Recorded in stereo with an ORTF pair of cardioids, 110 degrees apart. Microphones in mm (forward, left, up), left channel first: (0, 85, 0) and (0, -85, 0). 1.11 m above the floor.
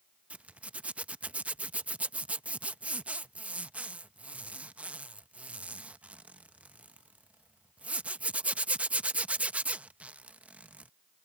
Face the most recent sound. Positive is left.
turn(degrees=-10)